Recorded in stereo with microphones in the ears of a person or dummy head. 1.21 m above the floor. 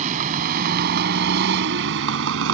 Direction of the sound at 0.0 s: 30° right (ahead or behind).